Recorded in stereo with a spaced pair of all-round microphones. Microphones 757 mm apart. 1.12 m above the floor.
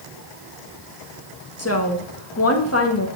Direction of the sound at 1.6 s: 20° left (ahead or behind).